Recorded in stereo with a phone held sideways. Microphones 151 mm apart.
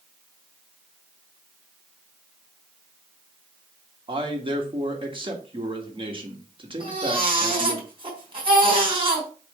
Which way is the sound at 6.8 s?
35° right (ahead or behind).